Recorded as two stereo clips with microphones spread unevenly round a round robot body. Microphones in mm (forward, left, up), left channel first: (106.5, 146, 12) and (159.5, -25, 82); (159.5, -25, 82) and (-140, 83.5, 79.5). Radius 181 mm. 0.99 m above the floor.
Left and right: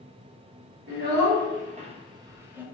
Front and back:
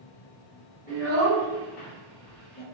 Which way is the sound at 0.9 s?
90° right.